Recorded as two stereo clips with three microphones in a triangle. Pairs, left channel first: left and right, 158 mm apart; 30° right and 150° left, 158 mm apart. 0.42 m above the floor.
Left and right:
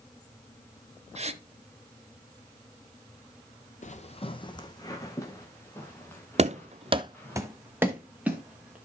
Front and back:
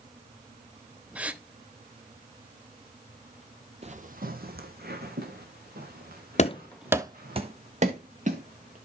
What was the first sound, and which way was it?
A gasp, 130° right.